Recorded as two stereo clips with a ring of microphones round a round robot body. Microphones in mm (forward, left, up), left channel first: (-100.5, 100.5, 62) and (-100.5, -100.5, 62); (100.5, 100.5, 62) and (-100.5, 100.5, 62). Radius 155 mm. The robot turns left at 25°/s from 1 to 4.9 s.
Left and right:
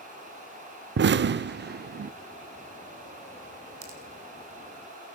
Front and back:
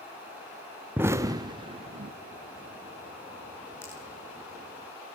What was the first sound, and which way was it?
An explosion, 100° right.